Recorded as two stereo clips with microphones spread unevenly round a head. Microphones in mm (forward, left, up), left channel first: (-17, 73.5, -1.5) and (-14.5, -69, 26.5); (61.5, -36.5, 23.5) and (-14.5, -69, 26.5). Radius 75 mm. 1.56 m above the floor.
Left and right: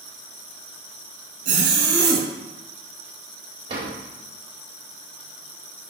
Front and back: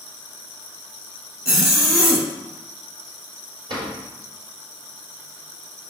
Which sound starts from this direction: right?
A zipper, at 1.4 s.